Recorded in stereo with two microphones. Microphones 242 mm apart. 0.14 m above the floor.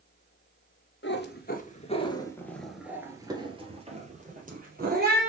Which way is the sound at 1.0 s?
50° left (ahead or behind).